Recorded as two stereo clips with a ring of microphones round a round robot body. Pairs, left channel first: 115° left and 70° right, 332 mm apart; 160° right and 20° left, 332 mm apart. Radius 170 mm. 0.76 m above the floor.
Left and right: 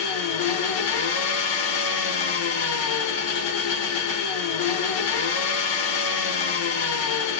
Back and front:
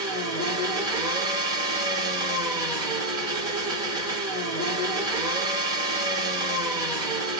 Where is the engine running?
100° left, 1.0 m.